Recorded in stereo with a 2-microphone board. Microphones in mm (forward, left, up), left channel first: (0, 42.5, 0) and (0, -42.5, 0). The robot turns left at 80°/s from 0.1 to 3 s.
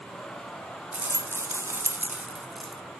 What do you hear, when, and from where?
0.9 s a rattle: 40° right, 1.1 m; by 2.8 s 170° left, 1.1 m